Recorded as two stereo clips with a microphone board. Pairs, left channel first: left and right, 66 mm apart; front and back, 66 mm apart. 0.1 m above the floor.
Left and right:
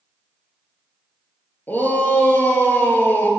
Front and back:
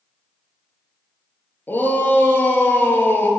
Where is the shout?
40° left, 2 m.